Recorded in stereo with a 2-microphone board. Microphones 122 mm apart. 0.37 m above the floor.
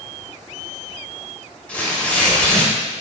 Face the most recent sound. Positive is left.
turn(degrees=10)  # may be behind; listen again after turning